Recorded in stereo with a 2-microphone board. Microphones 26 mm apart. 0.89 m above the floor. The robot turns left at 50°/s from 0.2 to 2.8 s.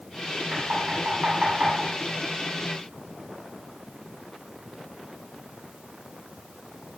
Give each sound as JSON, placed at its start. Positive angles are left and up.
{"t": 0.5, "sound": "knocking", "side_deg": -55, "distance_m": 6.0}